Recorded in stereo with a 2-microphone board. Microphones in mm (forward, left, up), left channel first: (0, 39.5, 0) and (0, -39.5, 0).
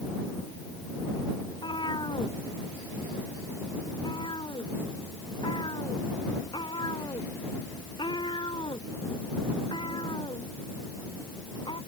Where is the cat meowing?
85° left.